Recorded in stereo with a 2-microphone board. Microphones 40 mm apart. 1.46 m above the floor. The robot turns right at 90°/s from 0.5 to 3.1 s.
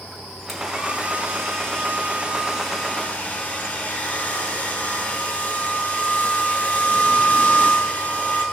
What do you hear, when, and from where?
0.5 s a hair dryer: 170° left, 5.5 m; by 8.4 s 45° left, 5.5 m